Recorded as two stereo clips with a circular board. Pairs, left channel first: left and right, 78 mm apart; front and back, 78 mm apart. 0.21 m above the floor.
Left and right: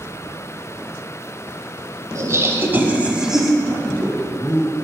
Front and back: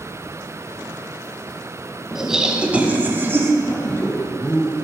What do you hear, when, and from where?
2.1 s laughter: 95° right, 1.2 m; by 3.5 s 175° right, 1.1 m
3.6 s a man speaking: 30° left, 1.5 m